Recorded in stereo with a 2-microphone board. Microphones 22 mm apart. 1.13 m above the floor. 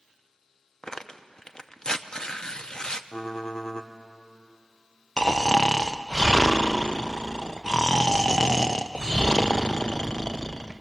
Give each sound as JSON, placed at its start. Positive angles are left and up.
{"t": 0.8, "sound": "tearing paper", "side_deg": 30, "distance_m": 0.7}
{"t": 3.1, "sound": "typing on a keyboard", "side_deg": 35, "distance_m": 1.2}
{"t": 5.2, "sound": "snoring", "side_deg": 30, "distance_m": 0.6}